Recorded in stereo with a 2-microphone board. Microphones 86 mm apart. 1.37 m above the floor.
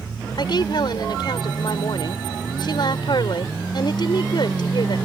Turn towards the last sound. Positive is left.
turn(degrees=60)  # may be behind; listen again after turning